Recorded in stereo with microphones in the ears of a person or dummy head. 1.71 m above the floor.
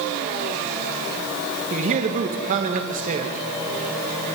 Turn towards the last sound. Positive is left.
turn(degrees=-40)  # may be behind; listen again after turning